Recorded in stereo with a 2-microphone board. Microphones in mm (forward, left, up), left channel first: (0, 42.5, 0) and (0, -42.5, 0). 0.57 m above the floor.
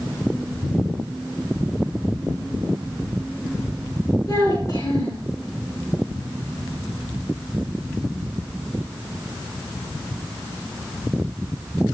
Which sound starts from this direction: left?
A child speaking, at 4.3 s.